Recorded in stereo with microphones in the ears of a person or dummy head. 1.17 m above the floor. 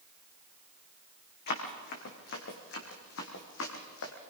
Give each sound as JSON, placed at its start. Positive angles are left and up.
{"t": 1.5, "sound": "running footsteps", "side_deg": 55, "distance_m": 4.5}